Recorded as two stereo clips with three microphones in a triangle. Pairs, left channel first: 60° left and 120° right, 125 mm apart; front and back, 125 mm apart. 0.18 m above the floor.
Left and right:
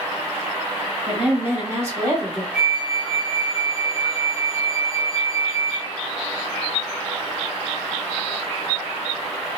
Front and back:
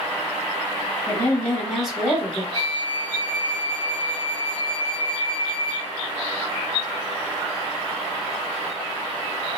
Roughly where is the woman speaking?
Ahead right.